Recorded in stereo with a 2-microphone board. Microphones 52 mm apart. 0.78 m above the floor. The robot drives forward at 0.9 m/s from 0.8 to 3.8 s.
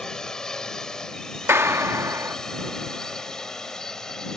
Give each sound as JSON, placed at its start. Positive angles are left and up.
{"t": 0.0, "sound": "a drone", "side_deg": 15}
{"t": 1.5, "sound": "a clap", "side_deg": -55}